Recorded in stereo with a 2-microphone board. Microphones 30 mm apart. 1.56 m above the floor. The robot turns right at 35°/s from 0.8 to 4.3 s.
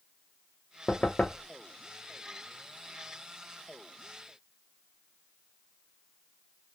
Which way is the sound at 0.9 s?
45° left (ahead or behind).